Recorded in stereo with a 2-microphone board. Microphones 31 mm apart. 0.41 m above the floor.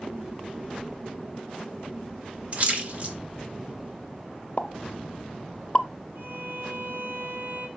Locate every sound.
2.5 s a splash: 40° right (ahead or behind), 1.6 m
4.6 s a pop: 35° left (ahead or behind), 0.6 m
6.2 s a violin: 70° right (ahead or behind), 3 m